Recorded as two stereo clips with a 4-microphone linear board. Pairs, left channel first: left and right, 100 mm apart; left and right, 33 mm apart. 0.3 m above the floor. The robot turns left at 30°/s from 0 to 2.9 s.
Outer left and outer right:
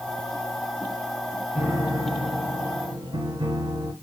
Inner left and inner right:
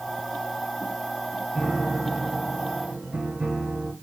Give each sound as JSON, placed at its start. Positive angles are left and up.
{"t": 1.6, "sound": "a piano", "azimuth_deg": -15, "distance_m": 2.5}